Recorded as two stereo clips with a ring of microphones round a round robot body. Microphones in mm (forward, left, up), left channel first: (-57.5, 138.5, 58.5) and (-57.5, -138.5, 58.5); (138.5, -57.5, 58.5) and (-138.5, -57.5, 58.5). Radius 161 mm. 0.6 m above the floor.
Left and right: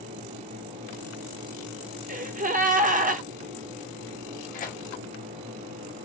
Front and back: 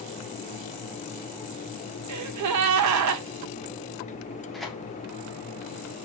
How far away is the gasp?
About 0.7 m.